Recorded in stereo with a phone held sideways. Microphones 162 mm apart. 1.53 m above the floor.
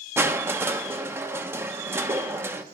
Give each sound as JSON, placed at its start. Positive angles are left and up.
{"t": 0.2, "sound": "crushing", "side_deg": -15, "distance_m": 1.0}